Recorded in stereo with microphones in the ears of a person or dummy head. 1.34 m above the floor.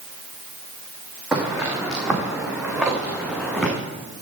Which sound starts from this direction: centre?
Footsteps, at 1.3 s.